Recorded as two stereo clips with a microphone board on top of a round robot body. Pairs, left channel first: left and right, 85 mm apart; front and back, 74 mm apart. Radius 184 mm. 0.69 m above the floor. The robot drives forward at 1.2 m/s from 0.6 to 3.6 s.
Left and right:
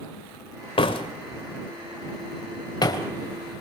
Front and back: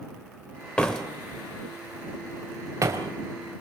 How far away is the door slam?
About 2.5 m.